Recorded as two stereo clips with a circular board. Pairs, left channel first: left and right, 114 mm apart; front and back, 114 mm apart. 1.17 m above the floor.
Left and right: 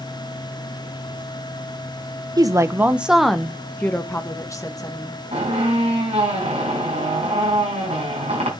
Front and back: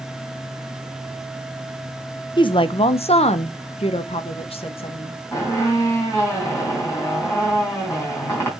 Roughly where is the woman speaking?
Ahead right.